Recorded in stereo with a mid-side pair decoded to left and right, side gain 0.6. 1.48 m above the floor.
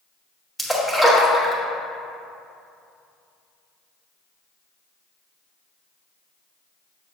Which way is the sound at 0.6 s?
5° left.